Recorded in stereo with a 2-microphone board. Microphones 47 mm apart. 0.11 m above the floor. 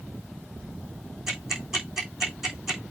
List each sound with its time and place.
1.3 s ticking: 5° right (ahead or behind), 4 m